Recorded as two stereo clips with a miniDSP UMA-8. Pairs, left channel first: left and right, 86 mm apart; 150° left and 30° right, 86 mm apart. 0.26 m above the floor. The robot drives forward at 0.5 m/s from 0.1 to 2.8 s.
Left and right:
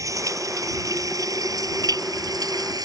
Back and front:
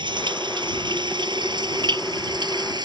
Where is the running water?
45° right; by 2.9 s 55° right.